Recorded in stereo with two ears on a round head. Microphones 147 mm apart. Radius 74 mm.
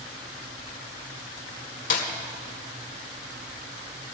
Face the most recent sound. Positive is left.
turn(degrees=50)  # may be behind; listen again after turning